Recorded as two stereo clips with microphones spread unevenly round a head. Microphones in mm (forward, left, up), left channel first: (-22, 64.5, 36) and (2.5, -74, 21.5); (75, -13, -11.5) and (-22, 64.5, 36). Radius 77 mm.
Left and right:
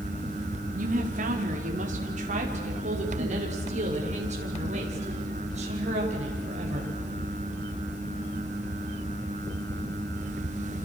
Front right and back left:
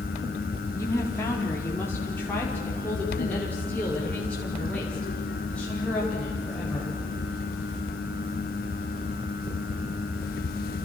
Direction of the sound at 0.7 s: 115° right.